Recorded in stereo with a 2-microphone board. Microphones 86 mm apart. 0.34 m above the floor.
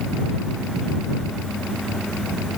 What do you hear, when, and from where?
Only background noise.